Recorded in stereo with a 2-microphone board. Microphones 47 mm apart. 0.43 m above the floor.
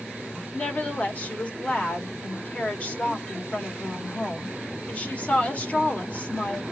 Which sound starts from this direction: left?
A woman speaking, at 0.5 s.